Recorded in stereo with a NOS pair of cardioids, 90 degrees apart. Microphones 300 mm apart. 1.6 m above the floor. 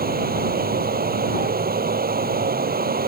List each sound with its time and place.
0.0 s running water: 30° right